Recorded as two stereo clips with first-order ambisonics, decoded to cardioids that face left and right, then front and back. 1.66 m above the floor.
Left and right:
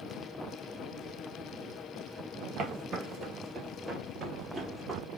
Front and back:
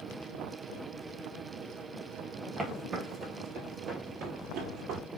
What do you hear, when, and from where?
2.6 s footsteps: 105° right, 2 m; by 5.0 s 175° right, 2 m